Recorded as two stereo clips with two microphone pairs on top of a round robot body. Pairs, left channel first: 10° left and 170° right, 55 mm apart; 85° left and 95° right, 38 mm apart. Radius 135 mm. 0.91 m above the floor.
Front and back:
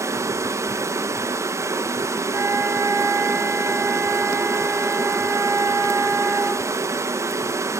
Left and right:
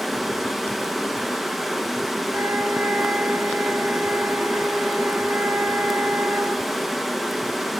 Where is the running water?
175° left, 1.2 m.